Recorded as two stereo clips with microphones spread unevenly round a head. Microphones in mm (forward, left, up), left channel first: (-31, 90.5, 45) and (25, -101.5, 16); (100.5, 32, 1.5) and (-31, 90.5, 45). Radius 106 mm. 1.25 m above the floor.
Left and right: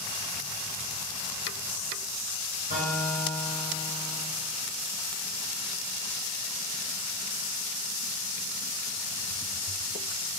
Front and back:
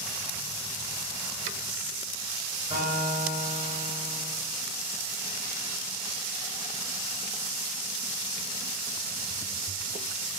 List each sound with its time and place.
2.7 s a guitar: 125° right, 4.5 m